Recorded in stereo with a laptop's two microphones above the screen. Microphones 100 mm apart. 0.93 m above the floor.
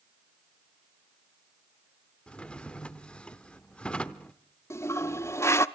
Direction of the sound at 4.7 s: 25° left (ahead or behind).